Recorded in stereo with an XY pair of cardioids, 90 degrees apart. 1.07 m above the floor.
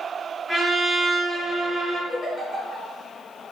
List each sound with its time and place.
0.5 s a trumpet: 25° right, 1.6 m
2.1 s a giggle: 40° left, 1.6 m